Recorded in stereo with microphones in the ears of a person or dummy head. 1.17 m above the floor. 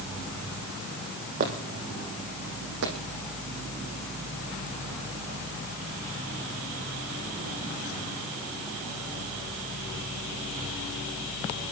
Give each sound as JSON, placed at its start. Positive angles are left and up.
{"t": 1.4, "sound": "footsteps", "side_deg": -40, "distance_m": 1.8}